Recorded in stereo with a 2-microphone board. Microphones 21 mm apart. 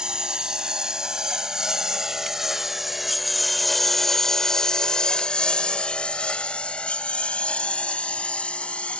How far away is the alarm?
I don't hear an alarm.